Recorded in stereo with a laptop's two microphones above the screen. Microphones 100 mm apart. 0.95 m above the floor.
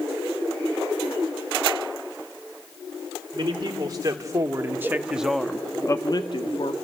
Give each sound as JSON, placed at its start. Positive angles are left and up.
{"t": 3.3, "sound": "a man speaking", "side_deg": -45, "distance_m": 3.0}